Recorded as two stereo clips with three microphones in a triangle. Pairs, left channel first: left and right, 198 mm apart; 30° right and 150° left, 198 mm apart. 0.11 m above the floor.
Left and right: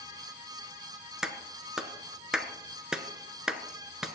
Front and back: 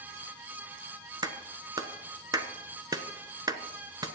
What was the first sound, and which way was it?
A clap, 170° right.